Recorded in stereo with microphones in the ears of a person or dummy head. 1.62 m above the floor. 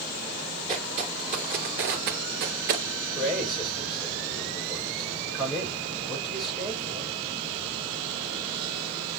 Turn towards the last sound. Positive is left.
turn(degrees=-5)  # may be behind; listen again after turning